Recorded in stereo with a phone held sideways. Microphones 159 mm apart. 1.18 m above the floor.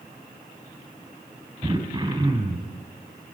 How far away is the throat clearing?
About 4 m.